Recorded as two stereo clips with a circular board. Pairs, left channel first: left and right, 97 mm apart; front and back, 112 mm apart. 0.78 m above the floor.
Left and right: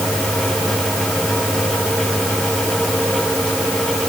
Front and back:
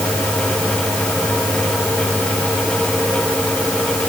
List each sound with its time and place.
Only background noise.